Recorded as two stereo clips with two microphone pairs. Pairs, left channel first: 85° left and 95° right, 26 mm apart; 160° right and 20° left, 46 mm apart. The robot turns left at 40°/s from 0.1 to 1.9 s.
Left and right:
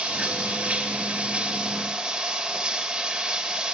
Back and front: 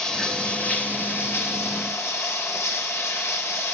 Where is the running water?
80° right, 2.5 m; by 3.8 s 155° right, 2.5 m.